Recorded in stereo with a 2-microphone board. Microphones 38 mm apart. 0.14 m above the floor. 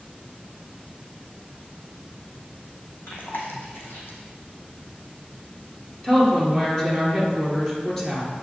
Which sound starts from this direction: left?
Chewing, at 3.1 s.